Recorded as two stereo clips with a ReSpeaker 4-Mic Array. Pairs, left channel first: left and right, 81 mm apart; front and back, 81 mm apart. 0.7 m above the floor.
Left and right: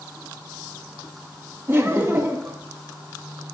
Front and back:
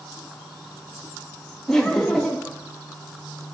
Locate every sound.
1.7 s laughter: 80° right, 0.6 m